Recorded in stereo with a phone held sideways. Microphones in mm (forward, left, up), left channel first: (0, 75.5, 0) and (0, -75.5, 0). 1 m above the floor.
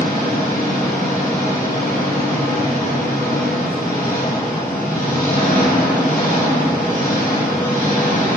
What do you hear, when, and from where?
0.0 s an engine running: 80° left, 3 m